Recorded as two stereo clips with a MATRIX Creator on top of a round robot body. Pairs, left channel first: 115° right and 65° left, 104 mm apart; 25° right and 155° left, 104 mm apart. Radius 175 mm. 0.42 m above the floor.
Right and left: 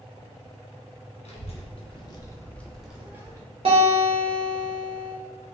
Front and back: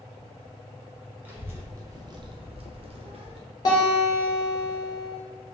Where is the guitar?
35° left, 0.7 m.